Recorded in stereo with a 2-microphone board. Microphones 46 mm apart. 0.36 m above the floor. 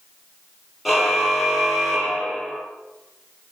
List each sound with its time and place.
0.8 s a car horn: 5° right (ahead or behind), 6 m; by 2.6 s centre (ahead or behind), 4.5 m